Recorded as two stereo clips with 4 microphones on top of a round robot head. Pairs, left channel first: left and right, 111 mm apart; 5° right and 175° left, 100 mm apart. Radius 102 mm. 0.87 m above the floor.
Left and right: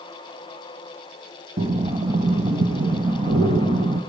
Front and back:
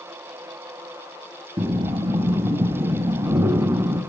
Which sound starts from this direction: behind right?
Breathing, at 1.6 s.